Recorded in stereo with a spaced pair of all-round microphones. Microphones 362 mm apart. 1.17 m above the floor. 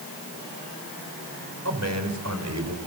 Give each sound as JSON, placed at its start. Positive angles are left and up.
{"t": 1.6, "sound": "a man speaking", "side_deg": -45, "distance_m": 5.0}